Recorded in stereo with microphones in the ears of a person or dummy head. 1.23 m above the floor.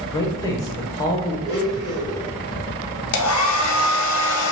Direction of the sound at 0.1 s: 15° left (ahead or behind).